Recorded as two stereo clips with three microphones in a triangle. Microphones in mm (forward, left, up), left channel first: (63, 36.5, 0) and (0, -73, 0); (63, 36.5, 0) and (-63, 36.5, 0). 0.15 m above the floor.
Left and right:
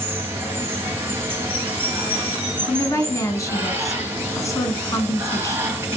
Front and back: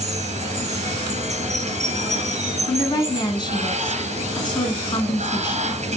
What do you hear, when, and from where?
0.0 s running water: 170° left, 1.3 m
2.7 s a woman speaking: 15° left, 1.4 m